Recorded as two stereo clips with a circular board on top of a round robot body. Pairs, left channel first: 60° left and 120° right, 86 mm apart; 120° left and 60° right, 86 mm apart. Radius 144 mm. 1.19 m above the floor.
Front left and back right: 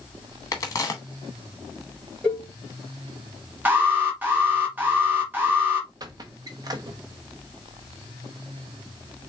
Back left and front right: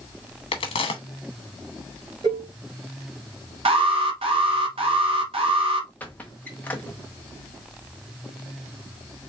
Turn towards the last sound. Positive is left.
turn(degrees=-165)